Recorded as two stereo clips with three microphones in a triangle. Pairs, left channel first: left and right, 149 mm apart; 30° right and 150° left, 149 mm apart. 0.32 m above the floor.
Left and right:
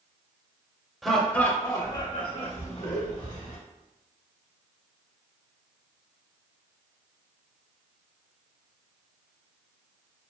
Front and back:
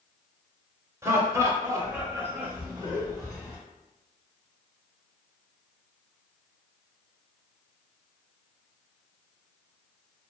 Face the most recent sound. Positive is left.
turn(degrees=80)